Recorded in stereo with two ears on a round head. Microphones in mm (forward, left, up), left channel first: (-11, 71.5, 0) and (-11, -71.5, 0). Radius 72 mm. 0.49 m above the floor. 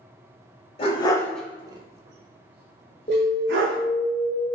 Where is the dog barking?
35° left (ahead or behind), 0.7 m; by 3.8 s 85° right, 1.6 m.